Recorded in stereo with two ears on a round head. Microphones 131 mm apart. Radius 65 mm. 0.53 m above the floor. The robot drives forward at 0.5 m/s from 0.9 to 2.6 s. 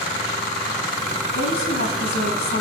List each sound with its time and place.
1.4 s a woman speaking: 75° left (ahead or behind), 5 m